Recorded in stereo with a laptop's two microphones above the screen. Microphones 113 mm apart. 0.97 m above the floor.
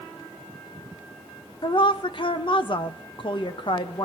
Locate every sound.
1.6 s a woman speaking: 50° left (ahead or behind), 0.7 m